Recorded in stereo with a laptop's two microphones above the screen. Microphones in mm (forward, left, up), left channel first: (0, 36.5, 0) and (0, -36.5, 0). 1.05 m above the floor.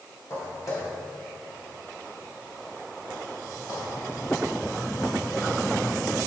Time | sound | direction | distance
0.3 | footsteps | 40° left (ahead or behind) | 2 m